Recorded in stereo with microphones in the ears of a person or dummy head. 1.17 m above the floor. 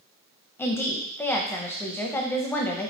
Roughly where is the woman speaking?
Centre.